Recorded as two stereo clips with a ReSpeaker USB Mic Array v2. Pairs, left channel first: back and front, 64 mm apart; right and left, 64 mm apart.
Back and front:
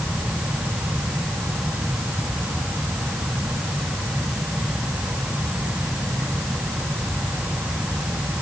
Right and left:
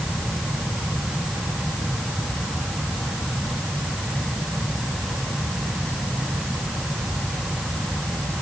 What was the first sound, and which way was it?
Only background noise.